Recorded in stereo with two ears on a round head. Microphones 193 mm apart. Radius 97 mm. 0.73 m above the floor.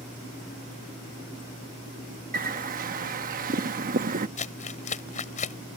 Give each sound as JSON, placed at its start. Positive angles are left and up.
{"t": 2.3, "sound": "a bird", "side_deg": -40}
{"t": 4.4, "sound": "crumpling", "side_deg": 35}